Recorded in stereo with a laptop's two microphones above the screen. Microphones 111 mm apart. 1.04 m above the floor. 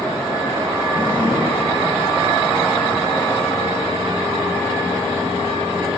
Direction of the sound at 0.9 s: 55° left (ahead or behind).